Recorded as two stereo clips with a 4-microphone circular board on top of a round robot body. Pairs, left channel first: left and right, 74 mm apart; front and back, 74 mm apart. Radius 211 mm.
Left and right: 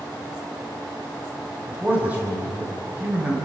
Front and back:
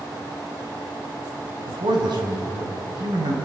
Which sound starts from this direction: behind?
A man speaking, at 1.7 s.